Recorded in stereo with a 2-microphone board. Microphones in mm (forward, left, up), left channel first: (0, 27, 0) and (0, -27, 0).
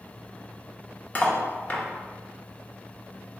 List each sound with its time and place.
1.1 s cutlery clinking: 30° left (ahead or behind), 0.5 m